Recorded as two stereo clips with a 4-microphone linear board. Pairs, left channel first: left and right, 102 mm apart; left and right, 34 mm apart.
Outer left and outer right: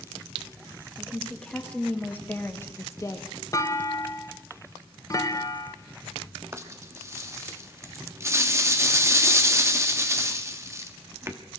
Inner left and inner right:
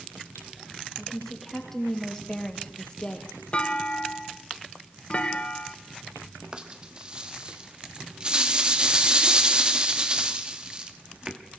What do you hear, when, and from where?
1.0 s a woman speaking: 5° left (ahead or behind), 2.5 m; by 3.3 s 35° left (ahead or behind), 1.6 m
3.5 s a clunk: 30° left (ahead or behind), 1.0 m
6.5 s a rattle: 30° right (ahead or behind), 1.3 m